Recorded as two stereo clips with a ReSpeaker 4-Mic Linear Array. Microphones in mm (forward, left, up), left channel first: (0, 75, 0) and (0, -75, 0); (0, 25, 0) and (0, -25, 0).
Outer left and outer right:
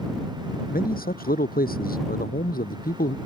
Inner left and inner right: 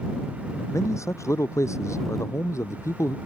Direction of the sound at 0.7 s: 75° left (ahead or behind).